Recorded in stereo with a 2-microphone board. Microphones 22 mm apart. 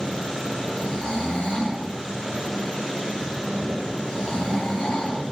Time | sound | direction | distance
0.7 | snoring | 45° left (ahead or behind) | 1.6 m